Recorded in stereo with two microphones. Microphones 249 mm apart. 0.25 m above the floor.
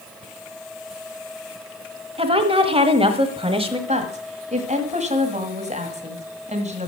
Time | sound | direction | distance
2.2 | a woman speaking | 20° right (ahead or behind) | 1.1 m
3.9 | a woman speaking | 25° right (ahead or behind) | 1.7 m